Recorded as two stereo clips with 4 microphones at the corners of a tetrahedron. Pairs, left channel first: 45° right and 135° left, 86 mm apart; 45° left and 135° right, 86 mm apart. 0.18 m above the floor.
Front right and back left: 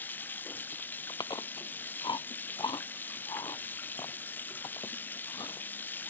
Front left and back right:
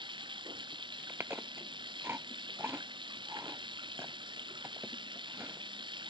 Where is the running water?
115° right.